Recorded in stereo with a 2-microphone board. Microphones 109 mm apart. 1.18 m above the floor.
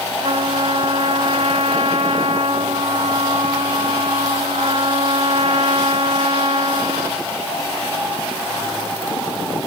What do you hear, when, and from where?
0.2 s a trumpet: 75° right (ahead or behind)